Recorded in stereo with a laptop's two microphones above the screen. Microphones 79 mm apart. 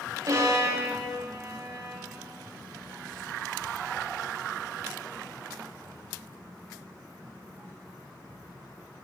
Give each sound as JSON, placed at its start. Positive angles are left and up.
{"t": 0.3, "sound": "a violin", "side_deg": -45, "distance_m": 1.9}